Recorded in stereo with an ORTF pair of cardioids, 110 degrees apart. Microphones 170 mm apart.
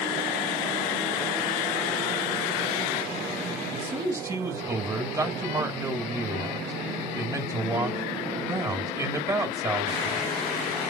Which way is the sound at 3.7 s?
20° right.